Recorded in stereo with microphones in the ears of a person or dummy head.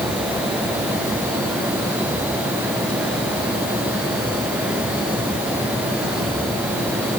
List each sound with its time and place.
Only background noise.